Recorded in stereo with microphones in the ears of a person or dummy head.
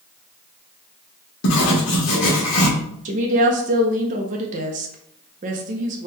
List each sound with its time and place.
1.4 s writing: 70° left (ahead or behind), 1.3 m
3.0 s a woman speaking: 40° right (ahead or behind), 0.5 m